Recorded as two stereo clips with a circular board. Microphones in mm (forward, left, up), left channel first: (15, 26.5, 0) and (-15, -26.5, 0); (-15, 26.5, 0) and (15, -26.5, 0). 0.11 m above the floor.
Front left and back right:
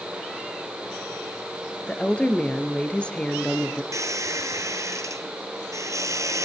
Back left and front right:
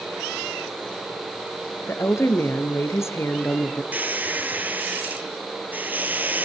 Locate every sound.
1.9 s a woman speaking: 125° left, 2 m
3.9 s a squeak: 115° right, 1.8 m